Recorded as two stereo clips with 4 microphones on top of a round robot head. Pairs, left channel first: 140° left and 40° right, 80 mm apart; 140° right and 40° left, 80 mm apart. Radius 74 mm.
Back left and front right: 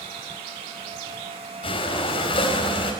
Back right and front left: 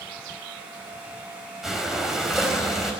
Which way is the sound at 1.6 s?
125° left.